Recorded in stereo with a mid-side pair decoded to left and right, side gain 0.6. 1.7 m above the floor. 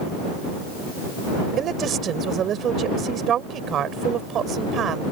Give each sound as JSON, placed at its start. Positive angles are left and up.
{"t": 1.6, "sound": "a woman speaking", "azimuth_deg": -50}